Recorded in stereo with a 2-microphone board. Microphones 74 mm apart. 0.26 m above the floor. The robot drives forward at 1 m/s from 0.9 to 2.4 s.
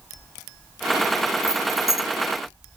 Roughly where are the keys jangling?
Right.